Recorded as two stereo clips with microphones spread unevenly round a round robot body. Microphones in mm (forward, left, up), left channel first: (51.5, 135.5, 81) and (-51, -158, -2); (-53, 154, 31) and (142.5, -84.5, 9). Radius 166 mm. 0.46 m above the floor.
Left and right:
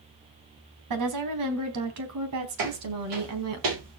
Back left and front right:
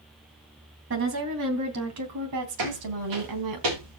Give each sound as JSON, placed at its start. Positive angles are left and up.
{"t": 0.9, "sound": "a woman speaking", "azimuth_deg": -105, "distance_m": 3.0}
{"t": 2.6, "sound": "footsteps", "azimuth_deg": -85, "distance_m": 6.5}